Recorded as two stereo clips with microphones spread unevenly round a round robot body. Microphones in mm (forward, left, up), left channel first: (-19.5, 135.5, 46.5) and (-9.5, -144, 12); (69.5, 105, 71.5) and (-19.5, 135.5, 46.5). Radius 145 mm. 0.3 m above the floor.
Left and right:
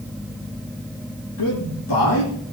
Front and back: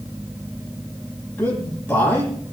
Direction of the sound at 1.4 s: 50° left.